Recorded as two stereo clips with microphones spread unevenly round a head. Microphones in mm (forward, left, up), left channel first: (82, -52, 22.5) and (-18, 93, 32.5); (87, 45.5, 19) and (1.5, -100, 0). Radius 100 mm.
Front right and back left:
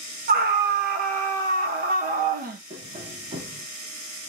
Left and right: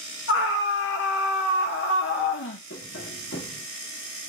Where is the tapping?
70° left, 1.2 m.